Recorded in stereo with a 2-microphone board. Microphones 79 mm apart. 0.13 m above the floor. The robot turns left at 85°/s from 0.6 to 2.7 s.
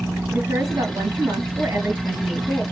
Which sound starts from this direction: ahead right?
A woman speaking, at 0.3 s.